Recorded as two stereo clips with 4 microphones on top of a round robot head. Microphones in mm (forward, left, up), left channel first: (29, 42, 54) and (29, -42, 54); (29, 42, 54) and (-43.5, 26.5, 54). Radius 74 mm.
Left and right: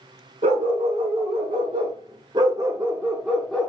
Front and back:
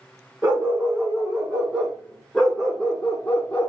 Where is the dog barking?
90° right, 2 m; by 3.7 s 25° left, 1.0 m.